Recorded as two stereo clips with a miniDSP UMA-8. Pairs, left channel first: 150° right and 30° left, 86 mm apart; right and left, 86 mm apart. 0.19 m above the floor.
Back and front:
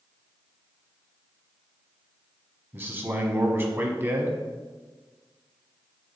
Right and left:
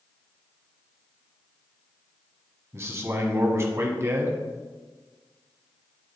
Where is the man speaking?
70° left, 1.1 m.